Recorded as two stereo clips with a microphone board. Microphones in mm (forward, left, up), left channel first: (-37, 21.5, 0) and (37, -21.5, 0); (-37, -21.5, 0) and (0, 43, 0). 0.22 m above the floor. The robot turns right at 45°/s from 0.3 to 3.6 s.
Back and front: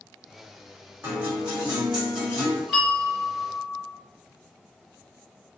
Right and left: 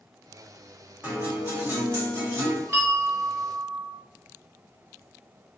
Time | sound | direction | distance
1.0 | a guitar | 5° left | 1.8 m
2.7 | a bell | 55° left | 1.9 m